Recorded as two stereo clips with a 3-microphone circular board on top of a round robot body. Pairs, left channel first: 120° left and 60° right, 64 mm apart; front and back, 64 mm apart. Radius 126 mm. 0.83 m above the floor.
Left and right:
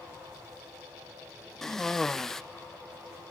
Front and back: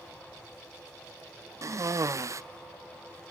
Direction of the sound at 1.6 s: 160° right.